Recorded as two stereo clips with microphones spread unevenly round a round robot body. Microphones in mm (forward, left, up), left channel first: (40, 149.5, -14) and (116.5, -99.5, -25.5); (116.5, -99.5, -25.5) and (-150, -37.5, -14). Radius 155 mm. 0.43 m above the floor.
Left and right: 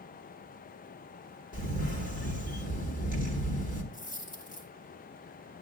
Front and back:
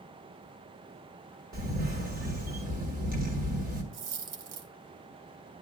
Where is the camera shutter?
140° left, 1.1 m.